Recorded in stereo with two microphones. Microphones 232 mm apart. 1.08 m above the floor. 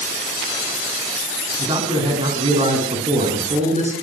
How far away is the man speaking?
About 8 m.